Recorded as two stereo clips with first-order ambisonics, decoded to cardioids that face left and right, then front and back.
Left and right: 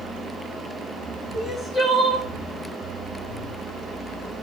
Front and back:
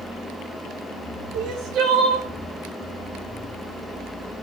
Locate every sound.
1.3 s crying: 160° left, 2.5 m